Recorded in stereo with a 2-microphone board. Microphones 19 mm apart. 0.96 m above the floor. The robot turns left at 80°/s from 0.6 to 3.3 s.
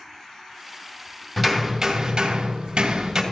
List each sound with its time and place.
1.4 s hammering: 5° right, 2.5 m; by 3.2 s 155° right, 2.5 m